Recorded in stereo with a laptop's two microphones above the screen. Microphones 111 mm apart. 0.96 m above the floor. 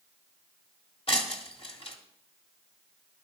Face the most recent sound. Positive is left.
turn(degrees=60)  # may be behind; listen again after turning